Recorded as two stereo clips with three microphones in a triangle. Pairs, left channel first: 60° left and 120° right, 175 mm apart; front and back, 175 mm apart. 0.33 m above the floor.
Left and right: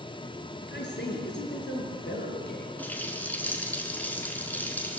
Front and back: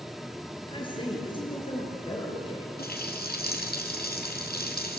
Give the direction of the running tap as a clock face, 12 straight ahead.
1 o'clock.